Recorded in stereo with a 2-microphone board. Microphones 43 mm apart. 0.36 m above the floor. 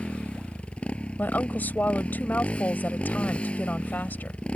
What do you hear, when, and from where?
0.0 s a motorcycle: 25° left (ahead or behind)
1.2 s a woman speaking: 45° left (ahead or behind)